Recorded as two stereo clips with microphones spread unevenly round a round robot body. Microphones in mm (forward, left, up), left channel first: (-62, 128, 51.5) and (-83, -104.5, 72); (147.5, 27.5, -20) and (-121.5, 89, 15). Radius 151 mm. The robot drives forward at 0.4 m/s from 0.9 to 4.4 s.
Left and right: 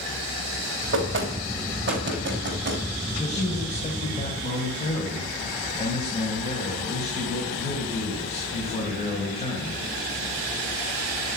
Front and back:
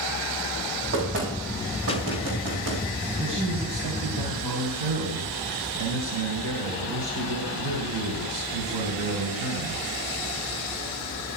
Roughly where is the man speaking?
Behind left.